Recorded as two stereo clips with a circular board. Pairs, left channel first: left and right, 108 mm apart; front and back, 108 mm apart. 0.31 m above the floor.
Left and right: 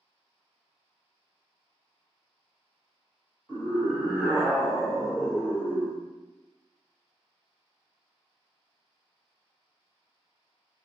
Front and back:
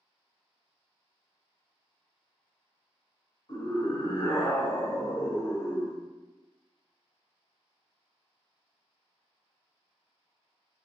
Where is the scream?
20° right, 1.9 m; by 6.0 s 40° left, 1.1 m.